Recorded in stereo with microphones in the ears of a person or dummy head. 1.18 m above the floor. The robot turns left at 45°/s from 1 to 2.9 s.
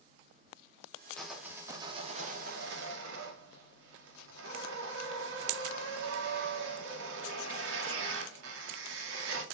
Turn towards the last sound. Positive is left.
turn(degrees=-70)